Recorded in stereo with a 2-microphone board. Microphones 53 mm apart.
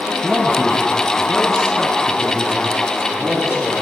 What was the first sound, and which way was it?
A man speaking, centre (ahead or behind).